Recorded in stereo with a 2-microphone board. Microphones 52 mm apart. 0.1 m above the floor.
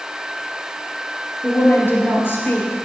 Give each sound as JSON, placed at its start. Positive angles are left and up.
{"t": 1.4, "sound": "a woman speaking", "side_deg": 45, "distance_m": 2.0}